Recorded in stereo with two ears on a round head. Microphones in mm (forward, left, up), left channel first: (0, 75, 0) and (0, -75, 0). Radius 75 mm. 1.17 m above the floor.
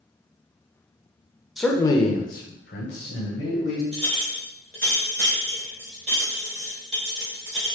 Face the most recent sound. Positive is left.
turn(degrees=-45)  # may be behind; listen again after turning